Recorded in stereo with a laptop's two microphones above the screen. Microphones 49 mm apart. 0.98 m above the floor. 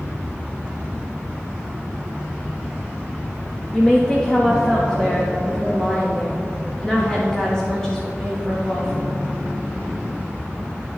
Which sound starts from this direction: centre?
A woman speaking, at 3.7 s.